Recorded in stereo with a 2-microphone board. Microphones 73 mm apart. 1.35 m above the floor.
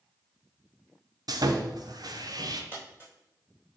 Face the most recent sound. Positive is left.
turn(degrees=-30)  # may be behind; listen again after turning